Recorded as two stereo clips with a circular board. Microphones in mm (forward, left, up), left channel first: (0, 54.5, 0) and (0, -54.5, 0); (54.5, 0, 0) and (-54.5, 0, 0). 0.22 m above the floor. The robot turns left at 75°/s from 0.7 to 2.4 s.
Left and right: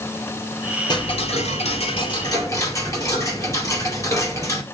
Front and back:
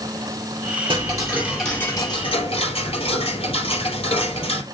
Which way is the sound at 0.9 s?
140° left.